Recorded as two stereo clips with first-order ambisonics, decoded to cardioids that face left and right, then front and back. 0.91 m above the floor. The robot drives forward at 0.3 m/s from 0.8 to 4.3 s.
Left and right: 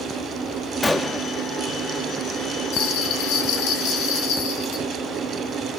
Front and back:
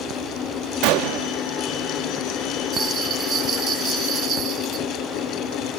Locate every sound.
0.8 s a gunshot: 170° left, 0.6 m; by 1.3 s 175° left, 0.7 m
2.7 s a bell: 115° left, 2.5 m; by 4.8 s 125° left, 3 m